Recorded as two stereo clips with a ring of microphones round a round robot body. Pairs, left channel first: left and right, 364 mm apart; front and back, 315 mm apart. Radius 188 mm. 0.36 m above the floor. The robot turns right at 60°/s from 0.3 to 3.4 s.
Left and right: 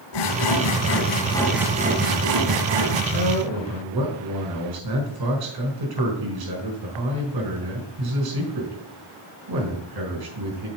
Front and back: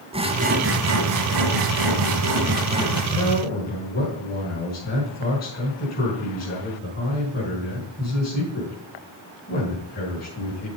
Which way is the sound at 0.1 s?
105° left.